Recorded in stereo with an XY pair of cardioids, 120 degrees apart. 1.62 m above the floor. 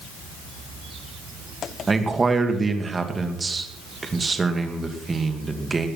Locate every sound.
1.9 s a man speaking: 20° right, 2.5 m